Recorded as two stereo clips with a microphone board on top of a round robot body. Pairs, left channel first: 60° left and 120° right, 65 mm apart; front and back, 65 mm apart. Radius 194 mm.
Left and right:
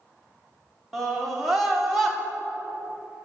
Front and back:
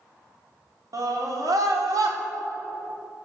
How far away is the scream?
About 3.5 m.